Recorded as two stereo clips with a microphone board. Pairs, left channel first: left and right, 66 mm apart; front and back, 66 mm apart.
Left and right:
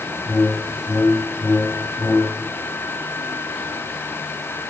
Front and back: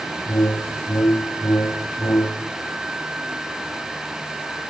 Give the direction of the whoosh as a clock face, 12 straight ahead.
11 o'clock.